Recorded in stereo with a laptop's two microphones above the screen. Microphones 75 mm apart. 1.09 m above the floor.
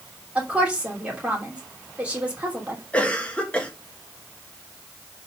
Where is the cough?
15° left (ahead or behind), 1.7 m.